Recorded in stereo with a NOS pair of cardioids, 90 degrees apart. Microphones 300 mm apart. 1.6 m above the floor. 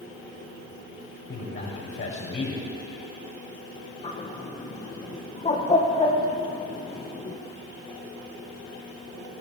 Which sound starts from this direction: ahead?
A bird, at 4.0 s.